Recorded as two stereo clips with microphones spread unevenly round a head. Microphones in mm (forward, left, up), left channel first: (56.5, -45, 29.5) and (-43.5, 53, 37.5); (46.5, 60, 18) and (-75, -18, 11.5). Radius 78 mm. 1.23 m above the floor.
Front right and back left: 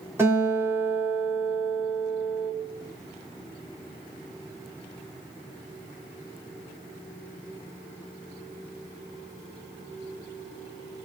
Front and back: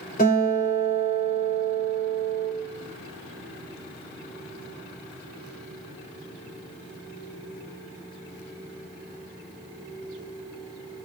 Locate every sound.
0.2 s a guitar: 60° left, 3.5 m